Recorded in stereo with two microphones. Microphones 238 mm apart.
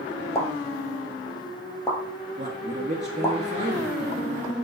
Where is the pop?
10° left (ahead or behind), 1.4 m.